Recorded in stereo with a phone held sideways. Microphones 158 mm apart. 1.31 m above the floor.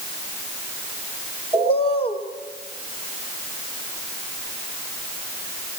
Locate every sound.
1.5 s a bird: 40° left (ahead or behind), 4 m